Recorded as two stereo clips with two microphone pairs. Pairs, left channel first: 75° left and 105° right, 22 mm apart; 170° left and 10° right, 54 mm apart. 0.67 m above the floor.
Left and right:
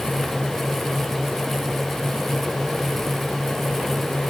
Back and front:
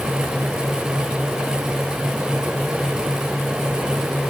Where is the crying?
I don't hear crying.